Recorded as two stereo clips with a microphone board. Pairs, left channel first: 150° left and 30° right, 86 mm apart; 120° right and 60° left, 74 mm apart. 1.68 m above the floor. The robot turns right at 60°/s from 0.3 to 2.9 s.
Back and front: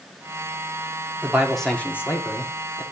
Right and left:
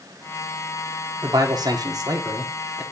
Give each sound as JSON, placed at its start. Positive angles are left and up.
{"t": 1.2, "sound": "a man speaking", "azimuth_deg": 40, "distance_m": 1.1}